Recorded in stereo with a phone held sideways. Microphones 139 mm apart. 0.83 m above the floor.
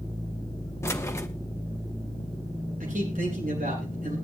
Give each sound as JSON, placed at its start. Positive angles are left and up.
{"t": 0.8, "sound": "keys jangling", "side_deg": 20, "distance_m": 1.2}
{"t": 2.8, "sound": "a man speaking", "side_deg": -85, "distance_m": 8.5}